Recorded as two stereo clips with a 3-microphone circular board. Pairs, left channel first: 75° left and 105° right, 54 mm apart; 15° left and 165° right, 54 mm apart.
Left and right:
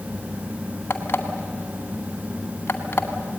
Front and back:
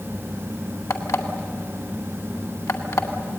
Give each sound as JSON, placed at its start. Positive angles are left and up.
{"t": 0.9, "sound": "an alarm clock", "azimuth_deg": 30, "distance_m": 2.0}